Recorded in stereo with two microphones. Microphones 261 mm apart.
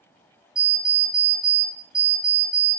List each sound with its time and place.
0.6 s an alarm clock: 15° left (ahead or behind), 0.9 m